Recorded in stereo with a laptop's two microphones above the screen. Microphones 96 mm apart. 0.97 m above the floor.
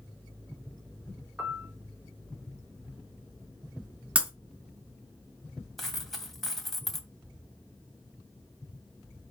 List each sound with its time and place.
1.4 s a piano: 20° right (ahead or behind), 3.5 m
4.2 s breaking glass: 15° right (ahead or behind), 3.5 m
5.8 s a dropped coin: centre (ahead or behind), 2.5 m